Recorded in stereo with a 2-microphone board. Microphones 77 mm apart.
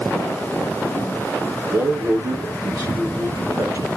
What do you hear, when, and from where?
1.7 s a man speaking: 50° right (ahead or behind), 4.5 m